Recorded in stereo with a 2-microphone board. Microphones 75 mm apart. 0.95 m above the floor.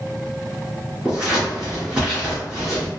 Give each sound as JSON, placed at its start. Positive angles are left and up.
{"t": 1.1, "sound": "scissors", "side_deg": -10, "distance_m": 1.8}